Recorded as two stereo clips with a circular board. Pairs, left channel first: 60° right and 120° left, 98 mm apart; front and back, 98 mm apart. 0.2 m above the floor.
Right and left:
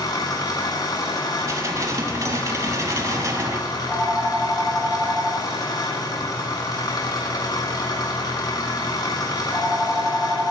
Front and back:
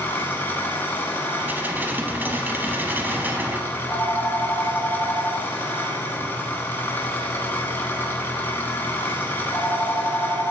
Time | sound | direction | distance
0.0 | an engine running | 60° right | 1.2 m
1.4 | dishes clattering | 125° left | 0.8 m
3.7 | a phone ringing | 45° left | 2 m